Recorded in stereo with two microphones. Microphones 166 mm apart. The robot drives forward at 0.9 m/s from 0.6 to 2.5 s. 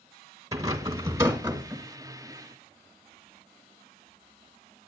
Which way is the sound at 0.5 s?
20° right (ahead or behind).